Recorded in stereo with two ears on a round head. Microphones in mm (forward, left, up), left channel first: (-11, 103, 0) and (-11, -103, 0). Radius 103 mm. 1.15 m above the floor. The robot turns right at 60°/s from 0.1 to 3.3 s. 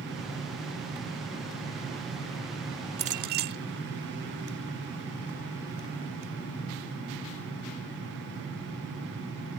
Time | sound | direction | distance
3.0 | a clink | 30° right (ahead or behind) | ?